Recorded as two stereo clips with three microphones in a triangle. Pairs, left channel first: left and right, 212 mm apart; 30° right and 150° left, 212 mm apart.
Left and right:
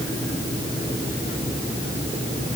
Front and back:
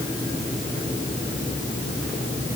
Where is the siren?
I don't hear a siren.